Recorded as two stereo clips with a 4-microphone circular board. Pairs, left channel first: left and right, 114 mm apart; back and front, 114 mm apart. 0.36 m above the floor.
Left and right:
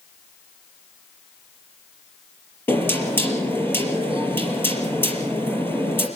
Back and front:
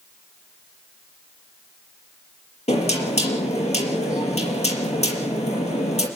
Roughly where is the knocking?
Behind.